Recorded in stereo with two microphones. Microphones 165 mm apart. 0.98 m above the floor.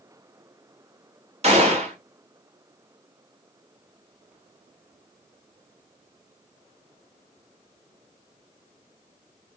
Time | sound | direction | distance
1.4 | a gunshot | 40° right (ahead or behind) | 1.2 m